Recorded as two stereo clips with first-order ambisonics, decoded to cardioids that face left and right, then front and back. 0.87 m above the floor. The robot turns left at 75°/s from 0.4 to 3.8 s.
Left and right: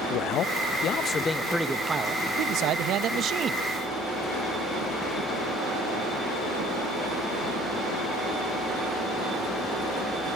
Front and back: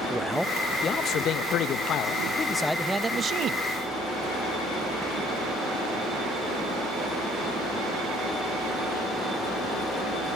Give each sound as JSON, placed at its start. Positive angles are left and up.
{"t": 0.1, "sound": "a man speaking", "azimuth_deg": 90, "distance_m": 0.9}